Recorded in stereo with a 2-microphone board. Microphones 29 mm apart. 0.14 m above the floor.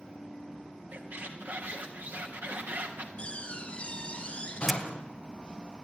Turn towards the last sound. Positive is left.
turn(degrees=-5)  # may be behind; listen again after turning